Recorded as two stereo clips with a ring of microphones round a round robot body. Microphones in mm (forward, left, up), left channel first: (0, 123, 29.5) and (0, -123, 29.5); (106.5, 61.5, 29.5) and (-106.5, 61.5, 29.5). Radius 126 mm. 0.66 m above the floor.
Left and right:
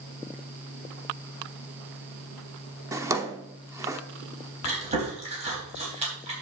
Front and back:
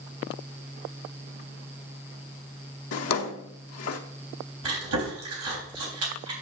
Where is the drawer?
10° right, 0.9 m.